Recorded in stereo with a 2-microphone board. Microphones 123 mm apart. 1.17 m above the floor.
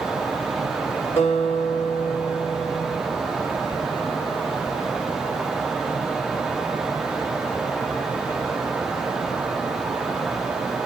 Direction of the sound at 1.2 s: 60° left (ahead or behind).